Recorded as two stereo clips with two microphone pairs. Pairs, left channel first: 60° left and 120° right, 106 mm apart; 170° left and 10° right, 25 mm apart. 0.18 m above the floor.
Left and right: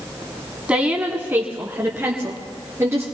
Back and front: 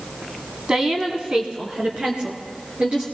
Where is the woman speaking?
45° right, 1.2 m; by 3.0 s 55° right, 3 m.